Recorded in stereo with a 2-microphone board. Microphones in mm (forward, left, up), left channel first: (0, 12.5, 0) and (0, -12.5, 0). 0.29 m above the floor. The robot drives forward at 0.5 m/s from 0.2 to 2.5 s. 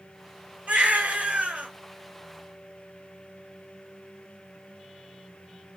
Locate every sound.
0.7 s a baby crying: 80° right, 1.4 m; by 1.7 s 70° right (ahead or behind), 1.4 m